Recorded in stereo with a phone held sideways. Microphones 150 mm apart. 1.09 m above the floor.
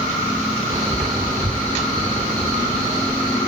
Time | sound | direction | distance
0.7 | a man speaking | 35° right (ahead or behind) | 4.5 m